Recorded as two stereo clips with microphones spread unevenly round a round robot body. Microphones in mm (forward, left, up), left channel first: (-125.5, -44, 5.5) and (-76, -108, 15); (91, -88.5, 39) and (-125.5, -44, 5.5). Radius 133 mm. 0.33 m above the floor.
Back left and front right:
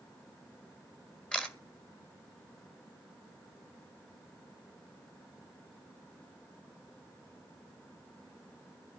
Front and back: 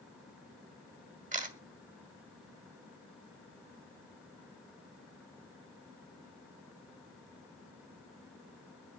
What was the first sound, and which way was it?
A camera shutter, 160° right.